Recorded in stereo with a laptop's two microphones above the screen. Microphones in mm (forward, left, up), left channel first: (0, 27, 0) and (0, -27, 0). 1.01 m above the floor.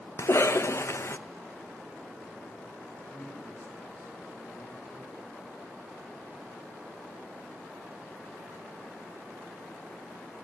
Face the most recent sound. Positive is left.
turn(degrees=35)  # may be behind; listen again after turning